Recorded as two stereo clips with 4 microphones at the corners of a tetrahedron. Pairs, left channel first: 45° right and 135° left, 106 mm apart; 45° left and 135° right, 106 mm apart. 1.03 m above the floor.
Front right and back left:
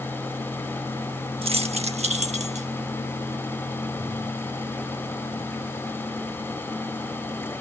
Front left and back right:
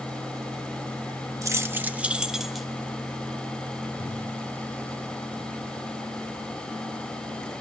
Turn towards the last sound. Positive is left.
turn(degrees=135)